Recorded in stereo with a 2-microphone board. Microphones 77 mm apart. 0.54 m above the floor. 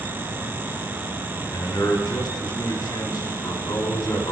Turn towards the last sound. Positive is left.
turn(degrees=60)  # may be behind; listen again after turning